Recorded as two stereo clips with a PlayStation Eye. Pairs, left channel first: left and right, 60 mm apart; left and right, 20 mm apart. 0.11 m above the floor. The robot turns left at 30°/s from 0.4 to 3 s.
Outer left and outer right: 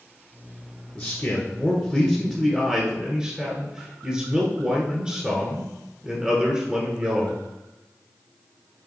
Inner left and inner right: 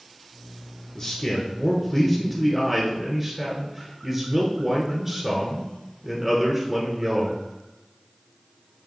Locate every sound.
0.9 s a man speaking: 25° left, 1.3 m; by 7.4 s 35° right, 1.3 m